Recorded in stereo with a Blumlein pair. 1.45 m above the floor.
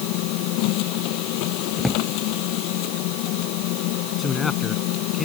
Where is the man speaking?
15° left.